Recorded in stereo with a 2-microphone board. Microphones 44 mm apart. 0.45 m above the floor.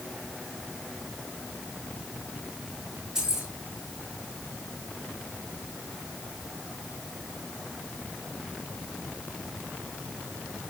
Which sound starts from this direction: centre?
Keys jangling, at 3.1 s.